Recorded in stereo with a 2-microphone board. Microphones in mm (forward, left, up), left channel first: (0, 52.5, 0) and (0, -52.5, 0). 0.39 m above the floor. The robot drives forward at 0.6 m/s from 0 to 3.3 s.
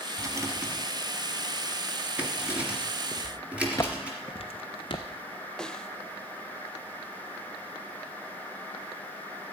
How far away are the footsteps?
About 1.8 m.